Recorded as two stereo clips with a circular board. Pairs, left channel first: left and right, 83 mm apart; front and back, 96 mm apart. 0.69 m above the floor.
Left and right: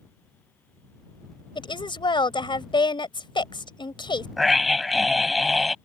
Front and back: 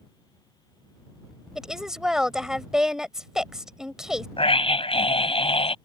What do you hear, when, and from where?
1.6 s a woman speaking: 95° left
4.4 s a scream: straight ahead